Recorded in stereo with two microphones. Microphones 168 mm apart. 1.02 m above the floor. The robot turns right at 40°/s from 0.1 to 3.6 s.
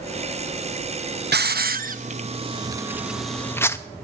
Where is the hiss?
75° right (ahead or behind), 0.6 m; by 3.8 s 15° left (ahead or behind), 0.6 m.